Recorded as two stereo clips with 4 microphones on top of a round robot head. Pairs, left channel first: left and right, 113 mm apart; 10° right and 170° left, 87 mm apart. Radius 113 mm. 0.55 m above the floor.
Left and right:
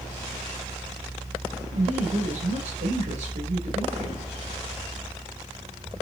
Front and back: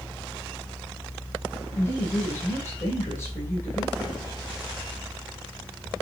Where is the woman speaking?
75° right, 2.5 m.